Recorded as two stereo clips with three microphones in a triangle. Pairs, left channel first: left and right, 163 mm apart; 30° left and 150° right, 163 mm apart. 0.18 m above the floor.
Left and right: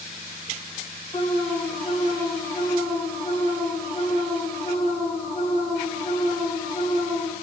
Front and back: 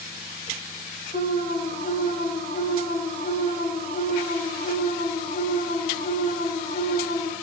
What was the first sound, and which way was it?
An alarm, 35° left.